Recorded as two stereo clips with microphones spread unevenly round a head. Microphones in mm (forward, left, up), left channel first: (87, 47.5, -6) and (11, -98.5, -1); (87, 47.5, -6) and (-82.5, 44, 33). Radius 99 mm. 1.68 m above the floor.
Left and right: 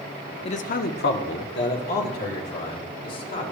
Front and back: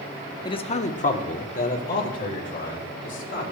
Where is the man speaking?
70° left, 0.5 m; by 3.4 s 45° left, 3.5 m.